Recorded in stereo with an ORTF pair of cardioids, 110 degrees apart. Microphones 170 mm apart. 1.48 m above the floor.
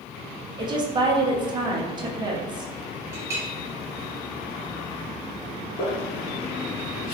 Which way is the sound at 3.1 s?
15° right.